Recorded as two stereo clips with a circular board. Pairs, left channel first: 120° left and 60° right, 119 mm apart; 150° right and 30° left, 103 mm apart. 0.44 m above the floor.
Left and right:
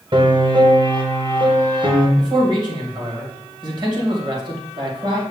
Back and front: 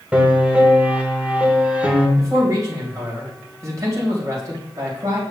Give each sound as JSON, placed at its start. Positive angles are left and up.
{"t": 0.1, "sound": "a piano", "azimuth_deg": -40, "distance_m": 1.2}
{"t": 2.2, "sound": "a man speaking", "azimuth_deg": -20, "distance_m": 2.5}